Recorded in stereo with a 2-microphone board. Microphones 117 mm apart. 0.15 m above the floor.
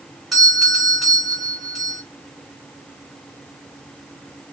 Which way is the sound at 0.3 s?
Centre (ahead or behind).